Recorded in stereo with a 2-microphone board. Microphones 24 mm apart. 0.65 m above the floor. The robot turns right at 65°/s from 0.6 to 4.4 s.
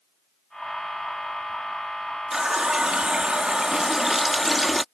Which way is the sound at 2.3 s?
135° right.